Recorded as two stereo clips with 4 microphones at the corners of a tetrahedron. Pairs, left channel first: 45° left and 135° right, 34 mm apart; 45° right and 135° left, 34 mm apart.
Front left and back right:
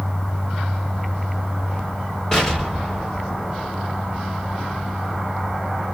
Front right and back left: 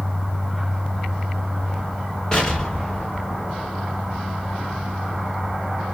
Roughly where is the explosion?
Ahead.